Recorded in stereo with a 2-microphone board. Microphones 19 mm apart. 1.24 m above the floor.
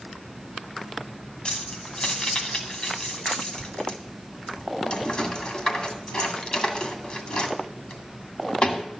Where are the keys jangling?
60° left (ahead or behind), 2 m.